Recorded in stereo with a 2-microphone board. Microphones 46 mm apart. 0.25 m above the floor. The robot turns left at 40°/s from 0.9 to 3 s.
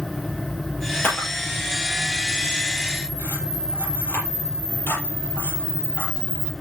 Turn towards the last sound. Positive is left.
turn(degrees=50)  # may be behind; listen again after turning